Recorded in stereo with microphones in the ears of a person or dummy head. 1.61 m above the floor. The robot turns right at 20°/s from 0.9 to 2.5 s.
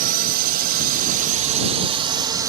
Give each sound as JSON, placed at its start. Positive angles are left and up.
{"t": 0.0, "sound": "a drone", "azimuth_deg": -50}